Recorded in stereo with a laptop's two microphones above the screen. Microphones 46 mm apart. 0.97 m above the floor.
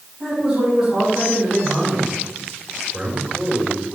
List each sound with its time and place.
0.2 s a man speaking: 20° right (ahead or behind), 5 m
2.9 s a man speaking: 20° right (ahead or behind), 4 m